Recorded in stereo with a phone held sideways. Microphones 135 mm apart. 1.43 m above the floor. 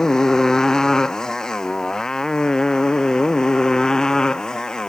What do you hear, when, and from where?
0.0 s a motorcycle: 5° left (ahead or behind)